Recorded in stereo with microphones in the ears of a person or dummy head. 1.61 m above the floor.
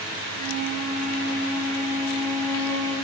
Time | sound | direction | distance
0.2 | a flute | 15° left (ahead or behind) | 1.5 m